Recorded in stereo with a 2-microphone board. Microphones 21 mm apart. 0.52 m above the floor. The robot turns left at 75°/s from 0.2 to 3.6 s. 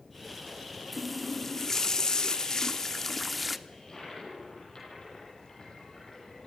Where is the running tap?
170° right, 0.7 m; by 3.6 s 10° right, 0.7 m.